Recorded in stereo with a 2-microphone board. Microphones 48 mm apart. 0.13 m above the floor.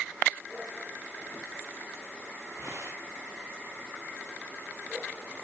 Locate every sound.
2.5 s tearing paper: 70° right (ahead or behind), 9.5 m